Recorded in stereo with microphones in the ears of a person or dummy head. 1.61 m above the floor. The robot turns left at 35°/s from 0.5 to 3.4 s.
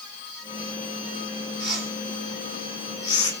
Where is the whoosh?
5° right (ahead or behind), 1.8 m; by 3.3 s 45° left (ahead or behind), 1.8 m.